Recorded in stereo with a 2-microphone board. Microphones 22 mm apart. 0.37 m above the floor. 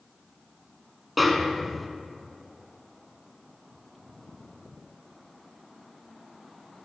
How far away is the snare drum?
About 0.7 m.